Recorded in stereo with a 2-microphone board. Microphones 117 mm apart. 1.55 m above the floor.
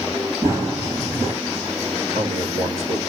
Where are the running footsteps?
25° right (ahead or behind), 1.8 m.